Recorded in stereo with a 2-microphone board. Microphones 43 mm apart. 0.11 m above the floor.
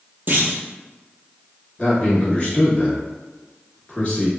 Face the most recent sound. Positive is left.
turn(degrees=25)  # may be behind; listen again after turning